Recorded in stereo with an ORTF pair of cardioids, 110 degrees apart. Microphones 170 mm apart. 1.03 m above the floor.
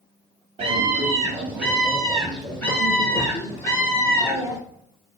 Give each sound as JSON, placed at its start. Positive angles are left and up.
{"t": 0.6, "sound": "a scream", "azimuth_deg": -35, "distance_m": 1.2}